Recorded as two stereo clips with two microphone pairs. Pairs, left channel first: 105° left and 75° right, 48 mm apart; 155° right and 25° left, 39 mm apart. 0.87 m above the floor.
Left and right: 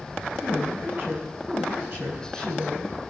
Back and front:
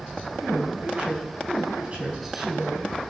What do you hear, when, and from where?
0.4 s a woman speaking: 35° right, 6.5 m